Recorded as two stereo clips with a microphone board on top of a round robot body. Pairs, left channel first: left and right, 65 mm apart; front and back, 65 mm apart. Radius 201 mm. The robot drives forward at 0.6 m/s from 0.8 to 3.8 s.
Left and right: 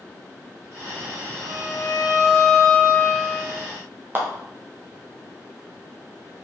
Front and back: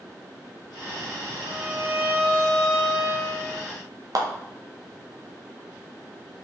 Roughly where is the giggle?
No giggle in this recording.